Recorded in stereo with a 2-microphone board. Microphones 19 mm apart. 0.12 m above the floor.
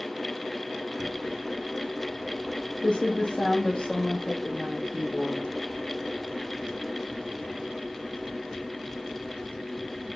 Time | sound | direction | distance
1.0 | typing on a keyboard | 70° left (ahead or behind) | 1.0 m